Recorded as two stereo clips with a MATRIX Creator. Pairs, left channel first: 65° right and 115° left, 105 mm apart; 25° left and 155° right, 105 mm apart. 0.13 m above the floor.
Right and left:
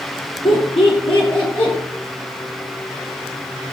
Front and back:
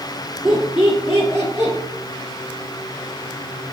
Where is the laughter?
75° right, 2.5 m; by 1.7 s 100° right, 2.5 m.